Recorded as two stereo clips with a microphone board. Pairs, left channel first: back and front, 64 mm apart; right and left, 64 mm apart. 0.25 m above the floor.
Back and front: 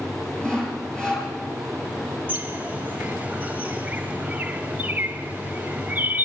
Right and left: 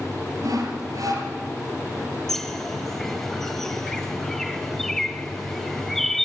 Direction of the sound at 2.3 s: 15° right.